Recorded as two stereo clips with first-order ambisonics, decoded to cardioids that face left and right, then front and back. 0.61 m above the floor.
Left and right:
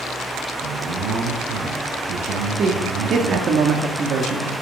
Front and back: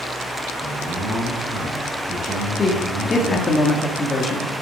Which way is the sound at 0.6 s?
120° right.